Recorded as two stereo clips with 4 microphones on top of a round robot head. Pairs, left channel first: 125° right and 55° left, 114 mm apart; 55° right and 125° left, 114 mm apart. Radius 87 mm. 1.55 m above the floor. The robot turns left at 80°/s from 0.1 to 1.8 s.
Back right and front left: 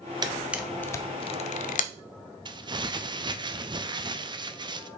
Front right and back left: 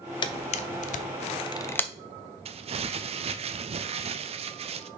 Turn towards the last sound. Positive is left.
turn(degrees=100)